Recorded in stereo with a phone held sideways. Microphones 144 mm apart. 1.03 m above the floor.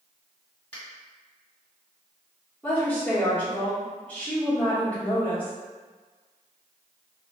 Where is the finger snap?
15° left (ahead or behind), 1.6 m.